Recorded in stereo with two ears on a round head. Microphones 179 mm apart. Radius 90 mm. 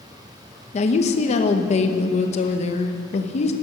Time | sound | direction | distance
0.7 | a woman speaking | 35° left (ahead or behind) | 0.9 m